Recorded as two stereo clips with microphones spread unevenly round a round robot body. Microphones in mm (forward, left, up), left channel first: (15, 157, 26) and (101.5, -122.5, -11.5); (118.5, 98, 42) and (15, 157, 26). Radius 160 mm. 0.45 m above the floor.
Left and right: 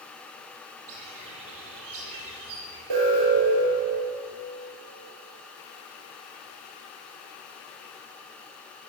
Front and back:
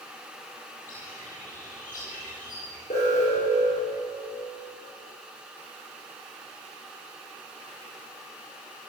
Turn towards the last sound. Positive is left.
turn(degrees=-85)